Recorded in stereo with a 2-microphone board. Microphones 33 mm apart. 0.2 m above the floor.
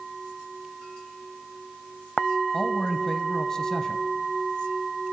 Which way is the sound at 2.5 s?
20° left (ahead or behind).